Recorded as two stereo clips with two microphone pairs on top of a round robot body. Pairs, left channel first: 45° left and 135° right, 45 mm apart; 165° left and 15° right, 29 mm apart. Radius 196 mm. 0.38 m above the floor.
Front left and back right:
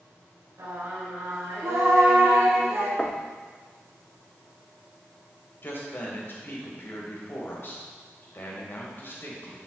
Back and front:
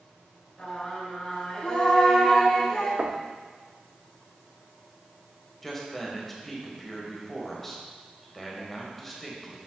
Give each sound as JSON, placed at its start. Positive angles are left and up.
{"t": 0.6, "sound": "singing", "azimuth_deg": -130, "distance_m": 4.0}
{"t": 3.0, "sound": "knocking", "azimuth_deg": -20, "distance_m": 1.1}
{"t": 5.6, "sound": "a man speaking", "azimuth_deg": 80, "distance_m": 3.0}